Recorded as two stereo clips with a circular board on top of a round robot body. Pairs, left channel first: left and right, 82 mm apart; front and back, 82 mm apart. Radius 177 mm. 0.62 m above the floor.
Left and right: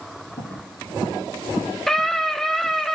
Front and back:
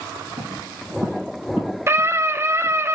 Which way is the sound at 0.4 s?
150° left.